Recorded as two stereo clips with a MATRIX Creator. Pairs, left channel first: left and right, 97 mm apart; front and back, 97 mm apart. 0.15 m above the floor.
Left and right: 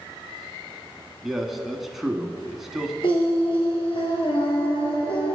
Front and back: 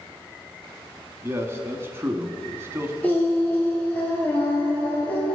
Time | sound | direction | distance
1.2 | a man speaking | 175° right | 1.1 m
3.0 | singing | 70° left | 3 m